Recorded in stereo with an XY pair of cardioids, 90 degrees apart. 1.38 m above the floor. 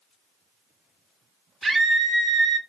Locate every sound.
1.6 s a scream: 35° right, 0.8 m